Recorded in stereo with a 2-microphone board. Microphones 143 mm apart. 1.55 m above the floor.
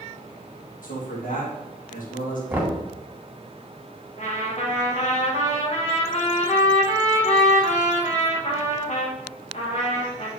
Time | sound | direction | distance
0.8 | a man speaking | 70° left (ahead or behind) | 2 m
2.5 | knocking | 15° right (ahead or behind) | 1.7 m
4.2 | a trumpet | 50° left (ahead or behind) | 1.6 m